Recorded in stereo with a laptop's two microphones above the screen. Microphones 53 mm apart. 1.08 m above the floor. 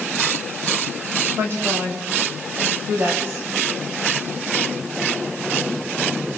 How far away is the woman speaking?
About 6.5 m.